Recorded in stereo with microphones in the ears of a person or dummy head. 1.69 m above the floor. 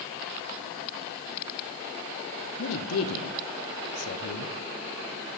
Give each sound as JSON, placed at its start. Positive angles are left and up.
{"t": 2.6, "sound": "a man speaking", "side_deg": 85, "distance_m": 1.1}